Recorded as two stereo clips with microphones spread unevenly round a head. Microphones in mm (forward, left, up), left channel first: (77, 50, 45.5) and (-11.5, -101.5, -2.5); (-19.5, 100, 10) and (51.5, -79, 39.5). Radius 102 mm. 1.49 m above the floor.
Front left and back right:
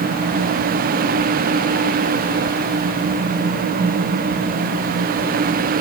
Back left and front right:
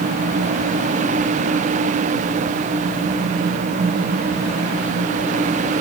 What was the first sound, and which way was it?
Only background noise.